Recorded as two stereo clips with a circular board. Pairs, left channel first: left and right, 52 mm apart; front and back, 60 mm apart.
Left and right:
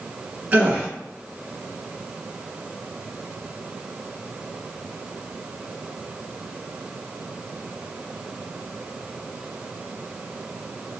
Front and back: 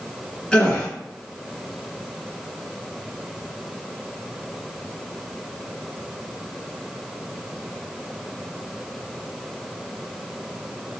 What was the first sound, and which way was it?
A gasp, 60° right.